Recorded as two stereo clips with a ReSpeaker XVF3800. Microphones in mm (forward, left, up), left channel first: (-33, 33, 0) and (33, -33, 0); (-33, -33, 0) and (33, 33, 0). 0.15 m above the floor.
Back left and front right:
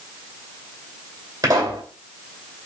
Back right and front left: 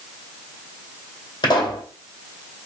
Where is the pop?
95° right, 2 m.